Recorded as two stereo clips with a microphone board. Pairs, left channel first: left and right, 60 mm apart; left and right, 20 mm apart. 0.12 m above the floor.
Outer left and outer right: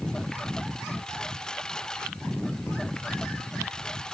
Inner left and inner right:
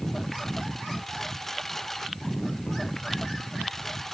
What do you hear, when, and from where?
0.0 s a lawn mower: 10° left (ahead or behind)